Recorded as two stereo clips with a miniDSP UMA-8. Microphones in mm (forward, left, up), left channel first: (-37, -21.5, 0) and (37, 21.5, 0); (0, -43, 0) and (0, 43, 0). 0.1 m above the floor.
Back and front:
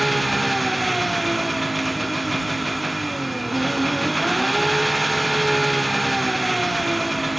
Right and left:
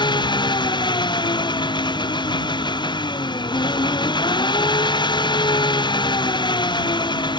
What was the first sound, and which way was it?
An engine running, 60° right.